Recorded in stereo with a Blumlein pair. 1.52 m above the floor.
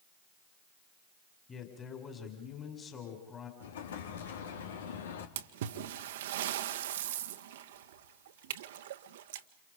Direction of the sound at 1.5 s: 20° left.